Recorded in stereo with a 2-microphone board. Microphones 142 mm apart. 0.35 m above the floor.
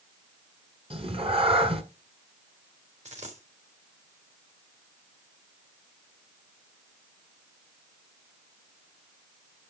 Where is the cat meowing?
40° right (ahead or behind), 1.7 m.